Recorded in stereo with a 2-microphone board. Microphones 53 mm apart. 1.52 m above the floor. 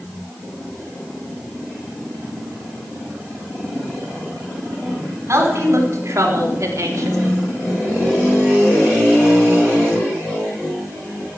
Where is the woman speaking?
55° right (ahead or behind), 5 m; by 7.2 s 65° right (ahead or behind), 2.5 m.